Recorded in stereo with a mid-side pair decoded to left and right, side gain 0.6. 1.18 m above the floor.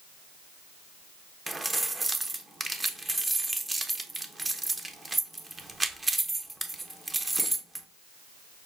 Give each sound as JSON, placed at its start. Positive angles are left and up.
{"t": 1.5, "sound": "keys jangling", "azimuth_deg": -15, "distance_m": 0.6}